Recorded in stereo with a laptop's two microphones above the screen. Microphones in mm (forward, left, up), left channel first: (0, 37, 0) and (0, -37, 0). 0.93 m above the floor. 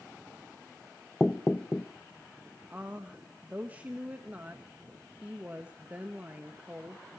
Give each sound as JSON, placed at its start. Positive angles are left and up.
{"t": 1.2, "sound": "knocking", "side_deg": 15, "distance_m": 0.9}
{"t": 2.7, "sound": "a woman speaking", "side_deg": -20, "distance_m": 1.2}